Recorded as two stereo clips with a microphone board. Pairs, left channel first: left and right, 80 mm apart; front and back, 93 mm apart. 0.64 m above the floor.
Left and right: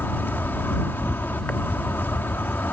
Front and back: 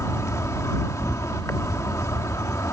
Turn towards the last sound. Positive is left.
turn(degrees=40)